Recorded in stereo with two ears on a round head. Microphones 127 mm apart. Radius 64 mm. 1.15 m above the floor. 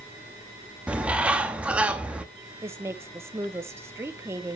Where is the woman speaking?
20° right (ahead or behind), 0.9 m.